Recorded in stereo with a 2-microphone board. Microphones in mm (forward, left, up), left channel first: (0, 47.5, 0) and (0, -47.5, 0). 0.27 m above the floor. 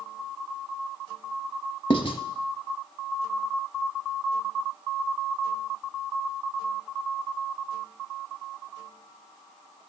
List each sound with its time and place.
1.9 s writing: 60° left (ahead or behind), 0.5 m